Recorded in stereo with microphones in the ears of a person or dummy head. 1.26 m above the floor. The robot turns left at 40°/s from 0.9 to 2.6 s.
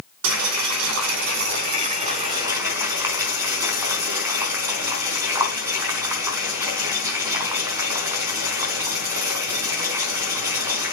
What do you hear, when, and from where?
0.2 s boiling: 75° right (ahead or behind), 5 m; by 10.9 s 10° right (ahead or behind), 5 m